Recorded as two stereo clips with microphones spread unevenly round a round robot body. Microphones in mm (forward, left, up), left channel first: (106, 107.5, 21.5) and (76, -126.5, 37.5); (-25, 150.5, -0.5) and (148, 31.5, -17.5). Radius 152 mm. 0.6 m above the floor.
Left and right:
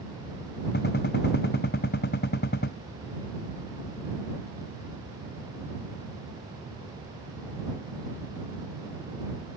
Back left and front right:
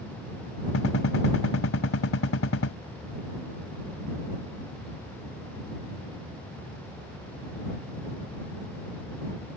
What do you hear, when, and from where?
0.7 s a gunshot: 140° left